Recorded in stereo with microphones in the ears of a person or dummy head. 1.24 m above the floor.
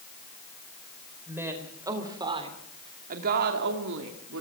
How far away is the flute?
I don't hear a flute.